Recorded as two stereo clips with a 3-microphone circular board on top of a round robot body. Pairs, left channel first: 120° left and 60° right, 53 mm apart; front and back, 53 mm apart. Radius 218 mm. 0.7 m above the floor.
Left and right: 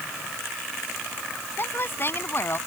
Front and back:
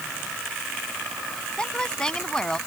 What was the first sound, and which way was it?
A woman speaking, 75° left.